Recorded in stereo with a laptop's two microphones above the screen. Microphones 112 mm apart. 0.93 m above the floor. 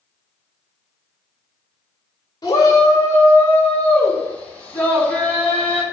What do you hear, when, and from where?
2.4 s a shout: 35° left (ahead or behind), 2.5 m; by 5.8 s 10° left (ahead or behind), 6.5 m